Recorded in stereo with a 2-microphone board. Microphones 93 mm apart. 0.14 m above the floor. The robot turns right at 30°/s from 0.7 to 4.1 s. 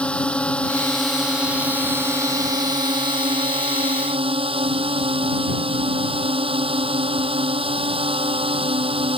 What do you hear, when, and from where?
0.0 s a drone: 170° left; by 9.2 s 90° right